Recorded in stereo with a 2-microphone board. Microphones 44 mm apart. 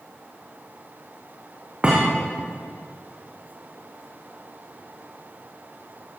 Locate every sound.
1.8 s a thud: 20° right (ahead or behind), 8.5 m